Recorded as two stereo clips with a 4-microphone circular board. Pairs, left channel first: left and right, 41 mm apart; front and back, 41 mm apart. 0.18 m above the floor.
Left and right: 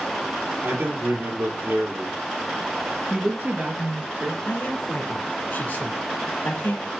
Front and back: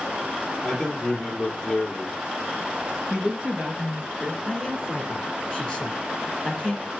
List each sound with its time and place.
0.6 s a man speaking: 90° right, 3.5 m
3.1 s a woman speaking: 120° right, 2.5 m
4.4 s a man speaking: 90° left, 1.6 m